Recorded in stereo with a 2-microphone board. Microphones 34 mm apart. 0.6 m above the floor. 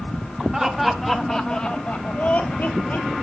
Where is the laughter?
15° right (ahead or behind), 1.2 m; by 3.1 s 55° left (ahead or behind), 1.4 m.